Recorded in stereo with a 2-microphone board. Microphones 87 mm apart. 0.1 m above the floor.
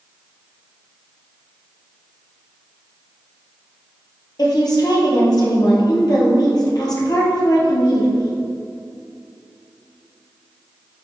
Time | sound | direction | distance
4.4 | a woman speaking | 50° left (ahead or behind) | 2.0 m